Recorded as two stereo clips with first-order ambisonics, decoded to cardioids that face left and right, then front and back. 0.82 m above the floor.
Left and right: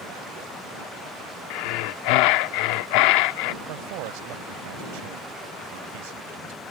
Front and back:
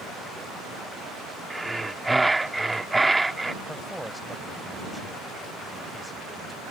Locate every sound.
1.5 s breathing: 100° left
3.6 s a man speaking: 90° right